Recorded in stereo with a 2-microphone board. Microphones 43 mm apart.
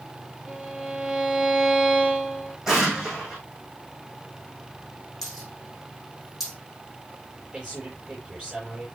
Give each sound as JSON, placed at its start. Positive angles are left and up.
{"t": 0.5, "sound": "a violin", "side_deg": -10, "distance_m": 7.5}
{"t": 2.7, "sound": "an explosion", "side_deg": -10, "distance_m": 5.5}
{"t": 5.2, "sound": "a dropped coin", "side_deg": -5, "distance_m": 6.0}
{"t": 7.5, "sound": "a man speaking", "side_deg": -15, "distance_m": 8.0}